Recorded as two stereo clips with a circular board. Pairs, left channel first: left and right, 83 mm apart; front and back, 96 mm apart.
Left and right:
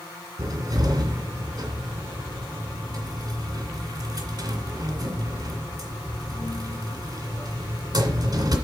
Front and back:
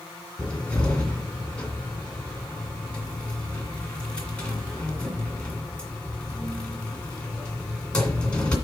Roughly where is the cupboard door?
Right.